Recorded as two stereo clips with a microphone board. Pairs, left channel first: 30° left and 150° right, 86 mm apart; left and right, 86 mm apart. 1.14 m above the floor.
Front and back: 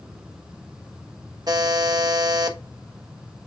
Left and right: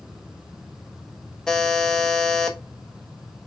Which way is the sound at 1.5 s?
170° left.